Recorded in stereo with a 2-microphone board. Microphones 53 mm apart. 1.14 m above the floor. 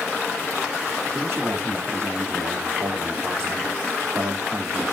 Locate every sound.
1.1 s a man speaking: 55° right (ahead or behind), 2.5 m